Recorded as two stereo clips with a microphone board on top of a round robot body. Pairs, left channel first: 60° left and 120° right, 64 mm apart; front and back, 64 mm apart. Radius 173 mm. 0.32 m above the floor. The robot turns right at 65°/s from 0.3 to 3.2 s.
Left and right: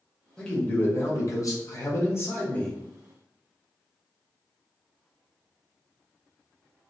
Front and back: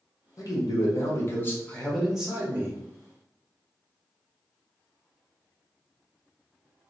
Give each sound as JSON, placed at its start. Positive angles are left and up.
{"t": 0.4, "sound": "a man speaking", "azimuth_deg": -15, "distance_m": 1.4}